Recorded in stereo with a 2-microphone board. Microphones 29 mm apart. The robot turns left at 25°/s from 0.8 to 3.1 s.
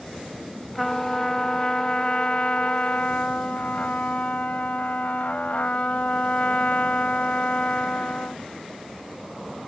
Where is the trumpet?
170° left; by 8.4 s 110° left.